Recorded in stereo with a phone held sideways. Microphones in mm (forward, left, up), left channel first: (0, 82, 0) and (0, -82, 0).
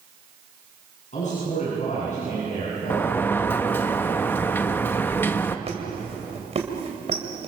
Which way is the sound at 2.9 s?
15° left (ahead or behind).